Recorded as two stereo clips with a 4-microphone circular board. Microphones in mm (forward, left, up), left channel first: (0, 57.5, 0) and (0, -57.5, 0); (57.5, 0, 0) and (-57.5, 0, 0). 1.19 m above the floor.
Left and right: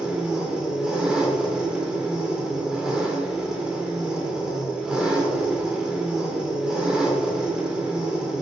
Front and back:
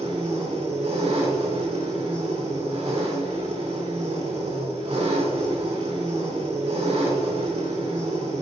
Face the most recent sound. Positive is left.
turn(degrees=-175)